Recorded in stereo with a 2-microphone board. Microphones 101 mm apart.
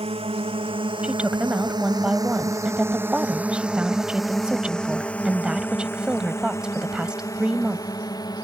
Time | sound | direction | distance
0.0 | a drone | 60° right (ahead or behind) | ?
1.0 | a woman speaking | 10° right (ahead or behind) | ?